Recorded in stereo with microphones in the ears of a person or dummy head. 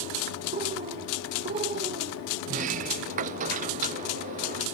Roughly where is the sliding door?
Right.